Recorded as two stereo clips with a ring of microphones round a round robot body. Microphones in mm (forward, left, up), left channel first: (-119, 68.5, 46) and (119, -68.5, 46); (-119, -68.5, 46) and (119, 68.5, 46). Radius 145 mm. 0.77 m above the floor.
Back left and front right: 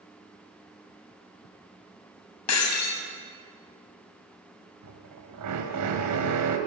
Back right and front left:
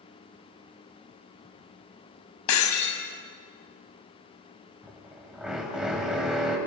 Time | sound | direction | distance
2.5 | breaking glass | 175° right | 3.5 m
4.8 | a drill | 60° right | 4 m